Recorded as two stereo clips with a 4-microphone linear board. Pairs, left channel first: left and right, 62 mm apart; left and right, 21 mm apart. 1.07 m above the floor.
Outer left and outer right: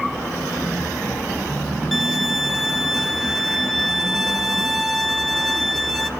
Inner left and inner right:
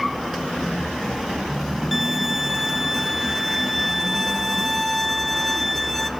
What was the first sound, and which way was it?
A violin, centre (ahead or behind).